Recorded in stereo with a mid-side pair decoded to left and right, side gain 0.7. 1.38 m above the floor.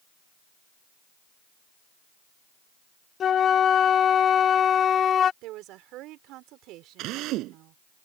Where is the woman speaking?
60° right.